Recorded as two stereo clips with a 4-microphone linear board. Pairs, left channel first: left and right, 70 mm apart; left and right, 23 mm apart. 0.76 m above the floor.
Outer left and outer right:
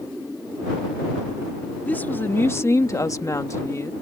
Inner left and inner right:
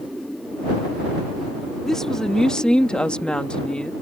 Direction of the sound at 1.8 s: 25° left (ahead or behind).